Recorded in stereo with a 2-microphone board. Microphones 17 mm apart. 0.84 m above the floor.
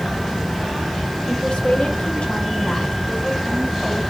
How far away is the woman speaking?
About 2.5 m.